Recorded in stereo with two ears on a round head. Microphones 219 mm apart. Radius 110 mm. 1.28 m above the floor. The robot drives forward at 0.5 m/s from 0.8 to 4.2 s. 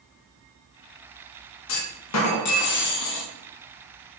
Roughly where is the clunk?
Left.